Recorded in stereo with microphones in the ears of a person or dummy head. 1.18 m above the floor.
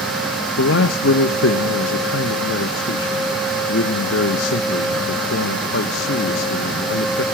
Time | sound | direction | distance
0.6 | a man speaking | 60° left (ahead or behind) | 1.3 m